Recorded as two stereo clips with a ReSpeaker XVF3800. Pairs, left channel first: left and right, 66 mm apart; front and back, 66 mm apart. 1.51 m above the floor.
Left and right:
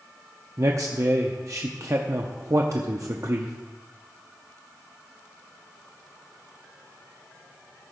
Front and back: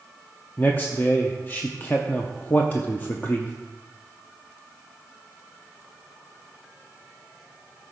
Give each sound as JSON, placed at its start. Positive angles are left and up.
{"t": 0.6, "sound": "a man speaking", "azimuth_deg": -60, "distance_m": 0.7}